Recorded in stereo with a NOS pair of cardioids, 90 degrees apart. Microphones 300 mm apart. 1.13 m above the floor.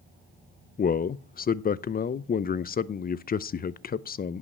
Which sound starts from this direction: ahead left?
A man speaking, at 0.8 s.